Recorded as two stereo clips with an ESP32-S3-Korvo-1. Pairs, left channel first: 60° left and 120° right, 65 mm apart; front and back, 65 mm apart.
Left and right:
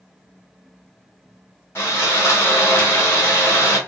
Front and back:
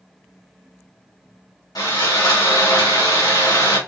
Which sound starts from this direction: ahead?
Sawing, at 1.8 s.